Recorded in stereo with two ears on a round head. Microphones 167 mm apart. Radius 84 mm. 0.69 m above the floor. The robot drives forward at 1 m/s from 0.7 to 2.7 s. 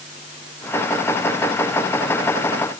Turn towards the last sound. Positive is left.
No sound to turn to.